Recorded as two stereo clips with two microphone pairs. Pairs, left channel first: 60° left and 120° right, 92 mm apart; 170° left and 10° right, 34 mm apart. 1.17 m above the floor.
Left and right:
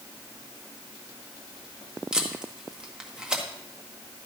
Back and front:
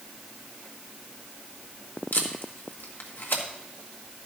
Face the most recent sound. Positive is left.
turn(degrees=160)